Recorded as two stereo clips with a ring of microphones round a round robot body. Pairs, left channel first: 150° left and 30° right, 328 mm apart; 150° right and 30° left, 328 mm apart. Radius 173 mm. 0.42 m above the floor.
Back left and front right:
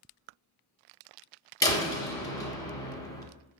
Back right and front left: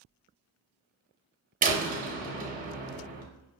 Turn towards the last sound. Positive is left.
turn(degrees=75)